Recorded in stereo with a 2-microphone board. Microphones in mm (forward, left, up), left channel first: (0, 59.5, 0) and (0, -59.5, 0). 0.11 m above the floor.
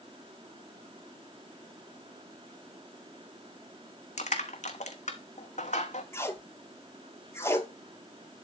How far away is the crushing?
About 1.0 m.